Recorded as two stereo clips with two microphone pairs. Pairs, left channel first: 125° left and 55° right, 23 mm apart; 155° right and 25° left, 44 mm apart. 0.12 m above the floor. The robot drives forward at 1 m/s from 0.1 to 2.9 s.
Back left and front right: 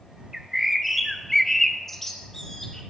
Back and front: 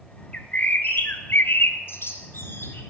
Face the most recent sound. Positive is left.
turn(degrees=-170)